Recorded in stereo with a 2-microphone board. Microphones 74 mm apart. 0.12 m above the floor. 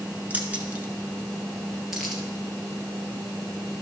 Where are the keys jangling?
20° right (ahead or behind), 1.2 m; by 2.2 s centre (ahead or behind), 2 m.